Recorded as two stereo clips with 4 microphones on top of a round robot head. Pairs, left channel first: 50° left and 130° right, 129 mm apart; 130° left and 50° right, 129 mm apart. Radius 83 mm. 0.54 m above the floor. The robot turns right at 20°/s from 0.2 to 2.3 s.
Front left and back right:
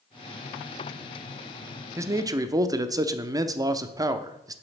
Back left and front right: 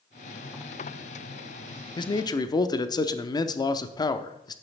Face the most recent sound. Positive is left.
turn(degrees=180)